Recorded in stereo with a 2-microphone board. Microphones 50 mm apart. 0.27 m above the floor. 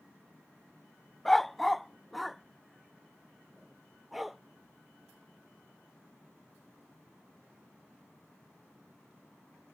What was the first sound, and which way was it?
A dog barking, 5° left (ahead or behind).